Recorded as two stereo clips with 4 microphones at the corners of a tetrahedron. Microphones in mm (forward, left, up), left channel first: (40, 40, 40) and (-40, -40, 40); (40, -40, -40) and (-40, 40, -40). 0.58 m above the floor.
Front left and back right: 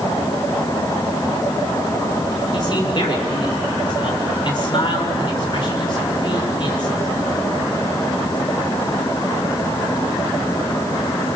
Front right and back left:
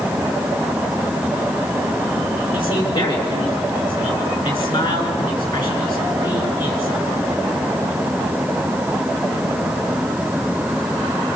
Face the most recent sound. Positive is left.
turn(degrees=-5)